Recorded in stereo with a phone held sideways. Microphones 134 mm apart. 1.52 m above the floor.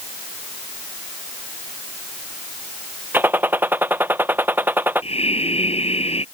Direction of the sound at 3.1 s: 15° right (ahead or behind).